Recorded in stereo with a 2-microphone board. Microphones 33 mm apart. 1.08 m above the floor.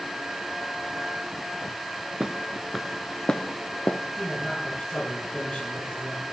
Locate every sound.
2.2 s footsteps: 20° right (ahead or behind), 1.1 m; by 4.0 s 40° left (ahead or behind), 1.3 m
4.2 s a man speaking: 25° left (ahead or behind), 10 m